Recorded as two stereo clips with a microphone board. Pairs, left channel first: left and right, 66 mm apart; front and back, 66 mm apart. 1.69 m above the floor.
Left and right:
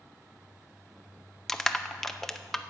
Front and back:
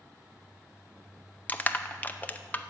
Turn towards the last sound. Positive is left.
turn(degrees=10)